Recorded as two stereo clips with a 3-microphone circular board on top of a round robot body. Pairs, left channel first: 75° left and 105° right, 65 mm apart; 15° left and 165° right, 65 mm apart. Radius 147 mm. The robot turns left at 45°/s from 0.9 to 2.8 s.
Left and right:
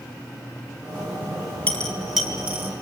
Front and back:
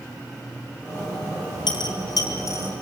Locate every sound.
1.7 s a dropped coin: 5° left, 5 m; by 2.7 s 45° right, 5 m